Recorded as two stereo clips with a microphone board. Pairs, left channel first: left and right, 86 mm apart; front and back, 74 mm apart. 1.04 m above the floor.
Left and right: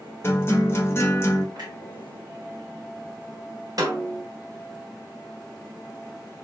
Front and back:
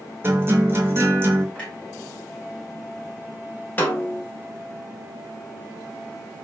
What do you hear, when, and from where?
0.2 s a guitar: 140° left, 0.9 m
1.6 s a clunk: 75° right, 1.6 m
3.8 s a snare drum: 60° right, 1.2 m